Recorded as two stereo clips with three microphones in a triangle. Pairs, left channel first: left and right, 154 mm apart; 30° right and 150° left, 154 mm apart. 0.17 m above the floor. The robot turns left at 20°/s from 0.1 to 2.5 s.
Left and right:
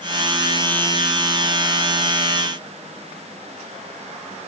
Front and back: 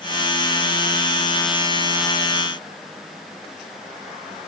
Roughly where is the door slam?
I don't hear a door slam.